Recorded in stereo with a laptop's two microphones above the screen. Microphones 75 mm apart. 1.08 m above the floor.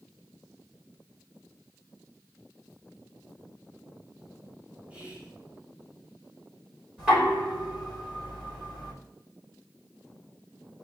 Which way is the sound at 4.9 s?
20° right (ahead or behind).